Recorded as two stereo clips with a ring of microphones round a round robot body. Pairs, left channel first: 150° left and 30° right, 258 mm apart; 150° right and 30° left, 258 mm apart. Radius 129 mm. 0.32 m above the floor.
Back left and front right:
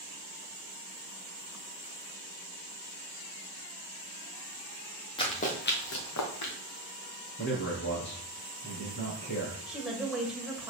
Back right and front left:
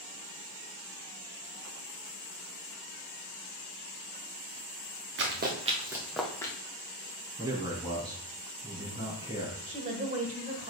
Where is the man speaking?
105° left, 4 m.